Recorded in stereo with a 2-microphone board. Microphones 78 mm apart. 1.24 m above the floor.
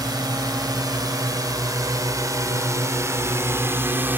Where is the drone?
55° right (ahead or behind); by 4.2 s 25° right (ahead or behind).